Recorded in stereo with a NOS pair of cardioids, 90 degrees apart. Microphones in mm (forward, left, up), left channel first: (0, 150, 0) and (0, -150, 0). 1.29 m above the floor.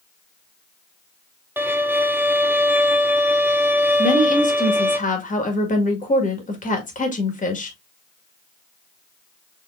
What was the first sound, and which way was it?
A violin, 5° right.